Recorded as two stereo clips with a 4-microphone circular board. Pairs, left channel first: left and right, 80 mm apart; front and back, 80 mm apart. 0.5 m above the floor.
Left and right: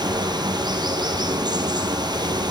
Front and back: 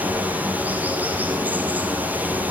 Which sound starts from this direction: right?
Running water, at 0.0 s.